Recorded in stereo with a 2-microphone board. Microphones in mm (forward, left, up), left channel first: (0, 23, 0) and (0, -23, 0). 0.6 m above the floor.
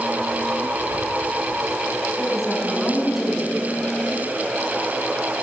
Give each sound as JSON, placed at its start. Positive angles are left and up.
{"t": 2.2, "sound": "a woman speaking", "side_deg": 0, "distance_m": 5.0}